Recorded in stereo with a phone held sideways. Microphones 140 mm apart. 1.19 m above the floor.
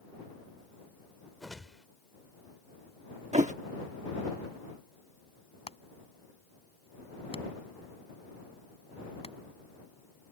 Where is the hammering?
40° left (ahead or behind).